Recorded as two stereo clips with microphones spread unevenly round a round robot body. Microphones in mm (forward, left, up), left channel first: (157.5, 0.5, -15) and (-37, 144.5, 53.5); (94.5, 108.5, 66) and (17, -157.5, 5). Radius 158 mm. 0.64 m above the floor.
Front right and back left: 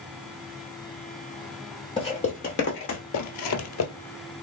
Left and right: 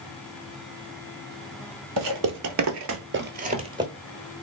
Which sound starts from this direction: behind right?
Footsteps, at 2.0 s.